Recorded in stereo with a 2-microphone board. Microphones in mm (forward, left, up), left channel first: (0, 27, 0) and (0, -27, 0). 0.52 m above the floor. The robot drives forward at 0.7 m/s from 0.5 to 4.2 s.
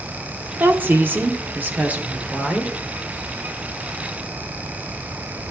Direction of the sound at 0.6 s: 35° right (ahead or behind).